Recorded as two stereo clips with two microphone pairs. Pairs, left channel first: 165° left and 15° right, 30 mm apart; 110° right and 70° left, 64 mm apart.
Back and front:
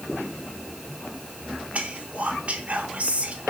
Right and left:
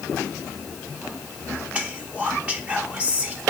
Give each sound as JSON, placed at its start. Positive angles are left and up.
{"t": 1.7, "sound": "whispering", "azimuth_deg": 5, "distance_m": 0.6}